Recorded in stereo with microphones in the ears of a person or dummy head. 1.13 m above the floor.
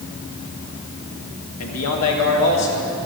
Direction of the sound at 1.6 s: 75° left (ahead or behind).